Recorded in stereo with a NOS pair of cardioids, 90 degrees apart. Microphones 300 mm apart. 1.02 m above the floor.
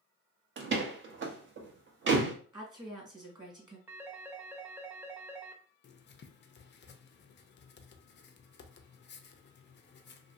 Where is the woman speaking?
15° right, 1.4 m.